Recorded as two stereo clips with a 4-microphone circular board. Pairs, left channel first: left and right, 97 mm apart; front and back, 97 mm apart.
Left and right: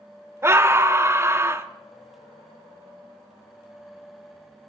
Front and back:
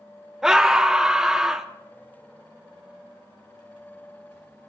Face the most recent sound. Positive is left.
turn(degrees=-100)